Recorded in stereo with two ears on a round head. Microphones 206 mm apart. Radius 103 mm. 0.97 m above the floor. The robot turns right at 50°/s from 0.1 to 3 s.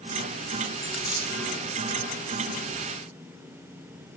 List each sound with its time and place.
0.8 s a dropped coin: 5° left (ahead or behind), 1.1 m; by 1.4 s 20° right (ahead or behind), 1.1 m